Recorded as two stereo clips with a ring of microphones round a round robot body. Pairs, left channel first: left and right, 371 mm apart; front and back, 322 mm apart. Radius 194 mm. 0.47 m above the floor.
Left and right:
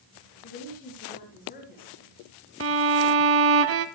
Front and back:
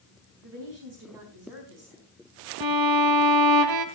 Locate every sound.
0.4 s a woman speaking: 160° left, 4.5 m
2.6 s a violin: 145° right, 1.2 m